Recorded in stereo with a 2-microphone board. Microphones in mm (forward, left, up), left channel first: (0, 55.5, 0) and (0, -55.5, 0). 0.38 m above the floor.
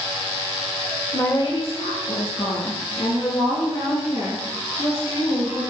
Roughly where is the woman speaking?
Left.